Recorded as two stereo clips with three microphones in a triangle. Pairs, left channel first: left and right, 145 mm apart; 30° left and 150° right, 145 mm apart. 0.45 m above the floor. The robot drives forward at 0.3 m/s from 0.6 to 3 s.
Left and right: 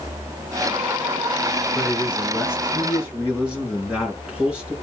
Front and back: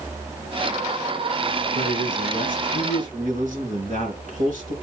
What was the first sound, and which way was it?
A man speaking, 170° right.